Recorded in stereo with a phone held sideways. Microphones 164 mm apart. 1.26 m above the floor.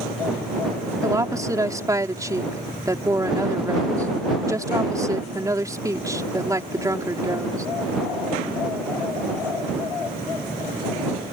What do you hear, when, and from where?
1.0 s a woman speaking: 20° right (ahead or behind)